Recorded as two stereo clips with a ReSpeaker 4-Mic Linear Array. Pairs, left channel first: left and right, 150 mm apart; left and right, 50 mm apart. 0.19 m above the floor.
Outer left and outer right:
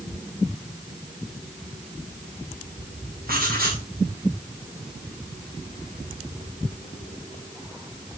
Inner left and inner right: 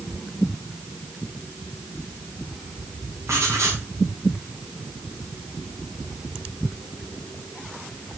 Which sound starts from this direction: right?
Writing, at 3.3 s.